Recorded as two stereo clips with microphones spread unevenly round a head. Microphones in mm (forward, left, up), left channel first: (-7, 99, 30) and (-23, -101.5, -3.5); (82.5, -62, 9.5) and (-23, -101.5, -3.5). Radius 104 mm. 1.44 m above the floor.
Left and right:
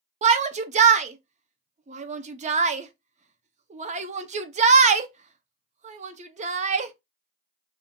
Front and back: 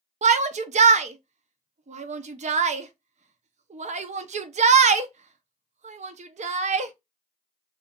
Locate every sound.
0.2 s a shout: 150° right, 0.6 m